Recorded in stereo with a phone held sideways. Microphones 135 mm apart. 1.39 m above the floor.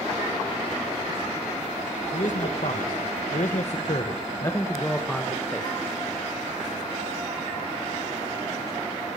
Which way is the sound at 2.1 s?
80° left.